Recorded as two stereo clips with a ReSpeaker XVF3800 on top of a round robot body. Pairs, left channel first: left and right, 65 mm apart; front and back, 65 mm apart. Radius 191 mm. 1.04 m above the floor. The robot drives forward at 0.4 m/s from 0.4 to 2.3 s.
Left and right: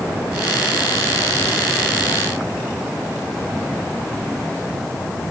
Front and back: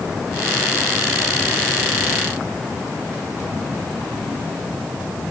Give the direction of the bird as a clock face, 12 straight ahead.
No bird in this recording.